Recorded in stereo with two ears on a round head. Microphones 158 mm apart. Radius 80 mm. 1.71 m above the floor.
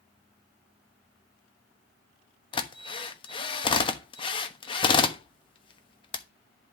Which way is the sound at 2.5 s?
30° left (ahead or behind).